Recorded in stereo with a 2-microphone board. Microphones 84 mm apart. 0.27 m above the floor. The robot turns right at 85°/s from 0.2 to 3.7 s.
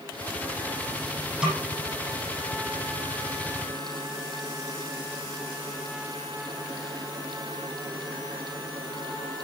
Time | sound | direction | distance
1.4 | a snare drum | 10° right (ahead or behind) | 9 m